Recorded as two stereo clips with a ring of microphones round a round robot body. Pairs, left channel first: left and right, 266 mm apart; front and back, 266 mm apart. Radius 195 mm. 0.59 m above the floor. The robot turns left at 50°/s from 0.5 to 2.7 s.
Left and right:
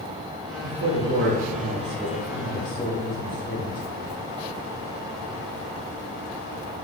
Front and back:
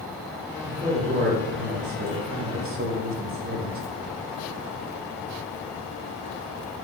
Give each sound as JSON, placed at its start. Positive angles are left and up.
{"t": 0.6, "sound": "a man speaking", "azimuth_deg": -100, "distance_m": 0.8}